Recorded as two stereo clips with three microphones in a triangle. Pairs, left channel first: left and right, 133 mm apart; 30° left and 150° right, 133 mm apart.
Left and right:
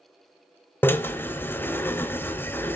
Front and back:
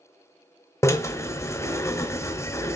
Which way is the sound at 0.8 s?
45° left.